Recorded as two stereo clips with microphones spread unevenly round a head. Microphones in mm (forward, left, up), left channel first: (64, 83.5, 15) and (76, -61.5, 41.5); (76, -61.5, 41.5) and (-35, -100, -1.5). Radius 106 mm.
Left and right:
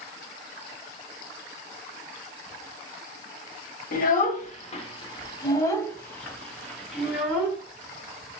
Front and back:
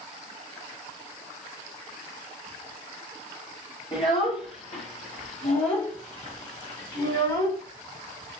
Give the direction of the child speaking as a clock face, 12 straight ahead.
10 o'clock.